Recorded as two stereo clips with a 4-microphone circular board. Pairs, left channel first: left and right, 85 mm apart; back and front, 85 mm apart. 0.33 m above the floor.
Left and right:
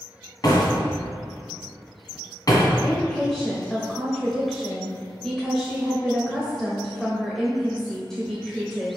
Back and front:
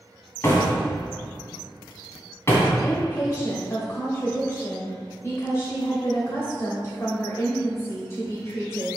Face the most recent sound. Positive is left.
turn(degrees=170)